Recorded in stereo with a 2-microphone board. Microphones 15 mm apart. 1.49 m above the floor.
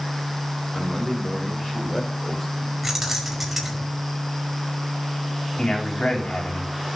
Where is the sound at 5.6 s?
80° left, 4.5 m.